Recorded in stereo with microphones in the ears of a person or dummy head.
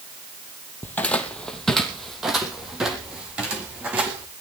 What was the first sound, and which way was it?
Footsteps, 10° left (ahead or behind).